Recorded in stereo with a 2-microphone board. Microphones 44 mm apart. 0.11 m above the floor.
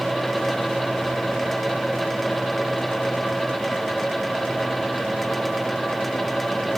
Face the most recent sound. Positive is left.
No sound to turn to.